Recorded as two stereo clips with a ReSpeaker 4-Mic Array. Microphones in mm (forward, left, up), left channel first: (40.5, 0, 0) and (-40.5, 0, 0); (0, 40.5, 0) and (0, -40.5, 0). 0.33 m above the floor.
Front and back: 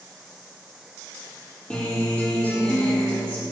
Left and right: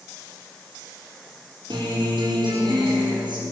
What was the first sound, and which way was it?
A guitar, 75° right.